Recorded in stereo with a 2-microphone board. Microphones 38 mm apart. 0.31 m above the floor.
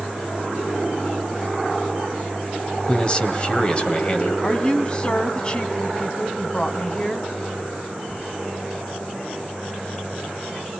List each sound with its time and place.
2.9 s a man speaking: 25° left (ahead or behind), 1.6 m
4.4 s a woman speaking: 20° left (ahead or behind), 1.8 m